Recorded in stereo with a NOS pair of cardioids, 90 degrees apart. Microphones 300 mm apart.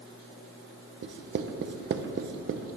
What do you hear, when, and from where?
1.0 s writing: 40° right, 1.1 m